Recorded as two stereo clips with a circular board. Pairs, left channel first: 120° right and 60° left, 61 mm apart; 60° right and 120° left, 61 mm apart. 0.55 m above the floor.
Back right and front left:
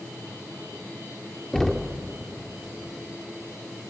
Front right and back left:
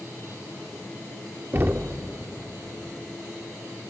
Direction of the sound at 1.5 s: 160° left.